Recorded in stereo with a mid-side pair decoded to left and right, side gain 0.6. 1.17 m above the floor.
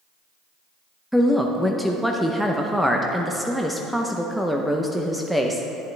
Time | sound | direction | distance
1.1 | a woman speaking | straight ahead | 0.7 m